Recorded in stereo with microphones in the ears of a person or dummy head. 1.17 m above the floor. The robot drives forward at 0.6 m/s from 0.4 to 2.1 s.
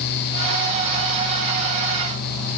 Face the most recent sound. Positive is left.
No sound to turn to.